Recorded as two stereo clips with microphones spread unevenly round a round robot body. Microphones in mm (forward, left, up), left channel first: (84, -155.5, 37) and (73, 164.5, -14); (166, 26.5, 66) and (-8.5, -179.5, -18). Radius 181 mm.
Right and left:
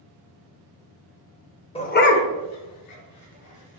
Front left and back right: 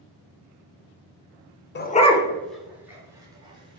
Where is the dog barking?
10° right, 0.6 m; by 3.8 s 60° right, 1.7 m.